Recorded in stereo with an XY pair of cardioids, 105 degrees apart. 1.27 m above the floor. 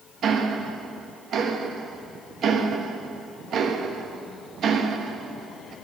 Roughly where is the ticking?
Ahead right.